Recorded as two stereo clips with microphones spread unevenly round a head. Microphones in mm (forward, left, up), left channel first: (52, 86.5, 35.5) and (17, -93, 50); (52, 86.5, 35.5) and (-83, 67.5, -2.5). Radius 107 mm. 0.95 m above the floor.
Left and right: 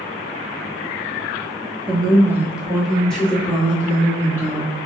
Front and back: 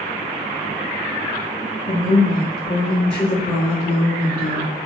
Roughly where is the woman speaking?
Ahead right.